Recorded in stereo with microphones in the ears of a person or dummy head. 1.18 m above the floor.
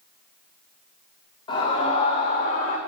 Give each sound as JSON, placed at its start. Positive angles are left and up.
{"t": 1.5, "sound": "a scream", "side_deg": 25, "distance_m": 5.5}